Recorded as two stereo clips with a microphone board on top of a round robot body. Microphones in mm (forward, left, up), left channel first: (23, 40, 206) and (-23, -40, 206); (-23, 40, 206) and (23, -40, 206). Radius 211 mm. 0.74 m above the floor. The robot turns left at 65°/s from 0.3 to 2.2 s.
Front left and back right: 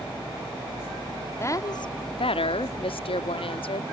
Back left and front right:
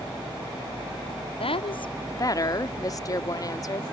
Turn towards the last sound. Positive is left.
turn(degrees=70)